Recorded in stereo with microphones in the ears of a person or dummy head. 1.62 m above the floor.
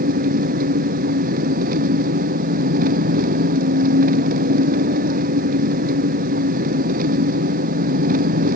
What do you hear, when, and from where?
0.0 s an engine running: 50° right (ahead or behind)